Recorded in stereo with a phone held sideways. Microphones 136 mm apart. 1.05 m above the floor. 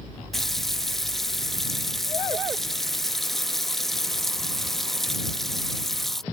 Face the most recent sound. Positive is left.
turn(degrees=0)  # may be behind; listen again after turning